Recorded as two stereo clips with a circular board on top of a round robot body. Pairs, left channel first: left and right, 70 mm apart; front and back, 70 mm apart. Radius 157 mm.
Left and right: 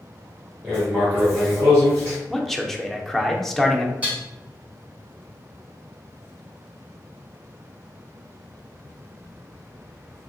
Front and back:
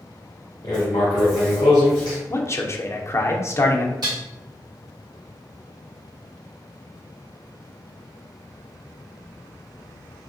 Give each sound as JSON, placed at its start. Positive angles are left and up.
{"t": 0.6, "sound": "writing", "azimuth_deg": -25, "distance_m": 0.6}
{"t": 2.3, "sound": "a man speaking", "azimuth_deg": 5, "distance_m": 0.7}
{"t": 4.0, "sound": "dishes clattering", "azimuth_deg": -160, "distance_m": 1.9}